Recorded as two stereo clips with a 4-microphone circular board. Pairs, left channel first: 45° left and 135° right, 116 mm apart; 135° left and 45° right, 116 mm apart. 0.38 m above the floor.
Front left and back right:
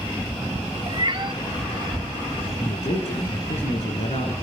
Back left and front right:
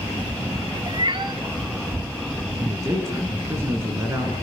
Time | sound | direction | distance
0.9 | a cat meowing | 90° right | 1.2 m
2.6 | a man speaking | 20° left | 5.5 m